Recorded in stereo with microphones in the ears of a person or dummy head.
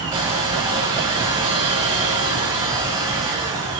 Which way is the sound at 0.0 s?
25° right (ahead or behind).